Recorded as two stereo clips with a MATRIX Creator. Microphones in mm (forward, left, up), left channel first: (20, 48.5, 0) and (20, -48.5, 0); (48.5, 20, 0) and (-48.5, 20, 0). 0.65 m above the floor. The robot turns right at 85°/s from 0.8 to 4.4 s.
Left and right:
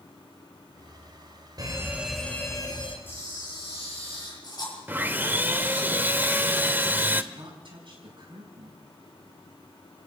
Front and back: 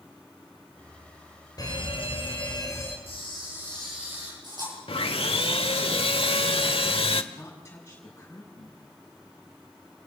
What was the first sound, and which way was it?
A fire alarm, 45° right.